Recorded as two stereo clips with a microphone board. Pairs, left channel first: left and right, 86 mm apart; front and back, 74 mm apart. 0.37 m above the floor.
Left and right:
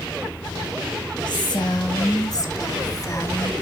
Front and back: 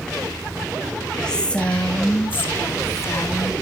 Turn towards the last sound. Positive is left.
turn(degrees=40)